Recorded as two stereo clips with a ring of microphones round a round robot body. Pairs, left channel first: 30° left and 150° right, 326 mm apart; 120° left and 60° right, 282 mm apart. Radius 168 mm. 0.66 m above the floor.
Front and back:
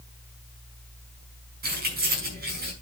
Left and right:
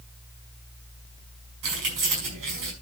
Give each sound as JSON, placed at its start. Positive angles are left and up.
{"t": 1.6, "sound": "keys jangling", "azimuth_deg": -85, "distance_m": 5.5}